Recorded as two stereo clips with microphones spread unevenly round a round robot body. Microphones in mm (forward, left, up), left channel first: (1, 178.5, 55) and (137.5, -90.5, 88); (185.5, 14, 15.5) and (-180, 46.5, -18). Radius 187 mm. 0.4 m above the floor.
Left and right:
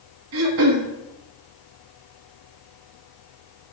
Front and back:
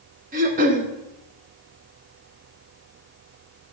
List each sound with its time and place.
0.3 s throat clearing: 115° right, 0.9 m